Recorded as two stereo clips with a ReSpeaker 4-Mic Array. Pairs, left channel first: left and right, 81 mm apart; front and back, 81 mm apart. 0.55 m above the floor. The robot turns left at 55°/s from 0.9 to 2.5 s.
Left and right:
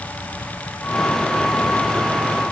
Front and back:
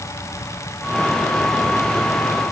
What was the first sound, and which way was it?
Only background noise.